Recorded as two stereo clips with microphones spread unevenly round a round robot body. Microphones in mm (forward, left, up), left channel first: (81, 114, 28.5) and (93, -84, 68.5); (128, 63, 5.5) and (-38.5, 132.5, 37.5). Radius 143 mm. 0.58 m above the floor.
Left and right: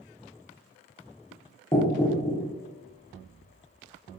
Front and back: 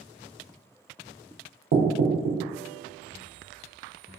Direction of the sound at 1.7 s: 155° left.